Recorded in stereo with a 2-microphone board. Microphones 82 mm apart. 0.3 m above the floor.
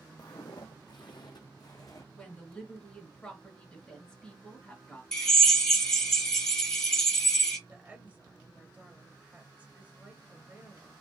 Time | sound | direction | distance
0.2 | footsteps | 55° left (ahead or behind) | 0.7 m
2.1 | a woman speaking | 10° left (ahead or behind) | 1.5 m
5.1 | a drill | 5° left (ahead or behind) | 1.3 m
7.7 | a woman speaking | 20° right (ahead or behind) | 1.0 m